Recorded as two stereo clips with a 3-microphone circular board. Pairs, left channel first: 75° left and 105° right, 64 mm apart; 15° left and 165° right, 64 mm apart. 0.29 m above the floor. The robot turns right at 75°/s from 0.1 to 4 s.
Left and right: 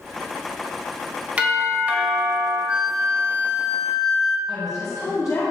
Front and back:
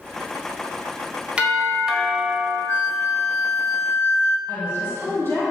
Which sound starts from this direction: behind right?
A doorbell, at 1.4 s.